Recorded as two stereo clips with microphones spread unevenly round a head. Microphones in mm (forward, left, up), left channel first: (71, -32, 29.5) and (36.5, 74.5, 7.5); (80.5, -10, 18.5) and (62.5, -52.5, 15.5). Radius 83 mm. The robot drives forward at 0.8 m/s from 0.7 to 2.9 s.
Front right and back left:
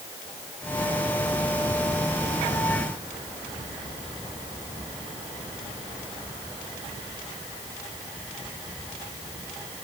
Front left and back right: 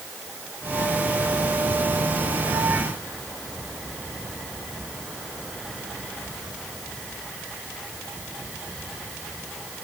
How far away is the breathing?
I don't hear breathing.